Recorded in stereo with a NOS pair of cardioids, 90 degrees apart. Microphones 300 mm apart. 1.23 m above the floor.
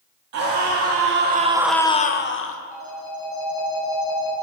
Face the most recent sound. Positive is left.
turn(degrees=70)